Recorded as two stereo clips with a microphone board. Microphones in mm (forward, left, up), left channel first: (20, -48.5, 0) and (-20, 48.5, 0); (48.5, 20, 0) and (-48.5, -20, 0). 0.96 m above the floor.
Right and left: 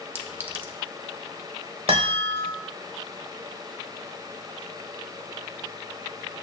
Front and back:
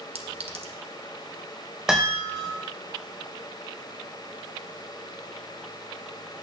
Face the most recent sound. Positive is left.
turn(degrees=120)